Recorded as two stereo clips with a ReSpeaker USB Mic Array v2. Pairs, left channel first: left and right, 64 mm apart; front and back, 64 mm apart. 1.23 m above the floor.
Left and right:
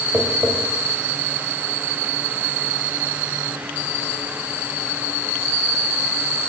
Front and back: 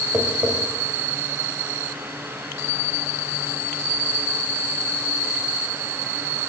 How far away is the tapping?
About 1.2 m.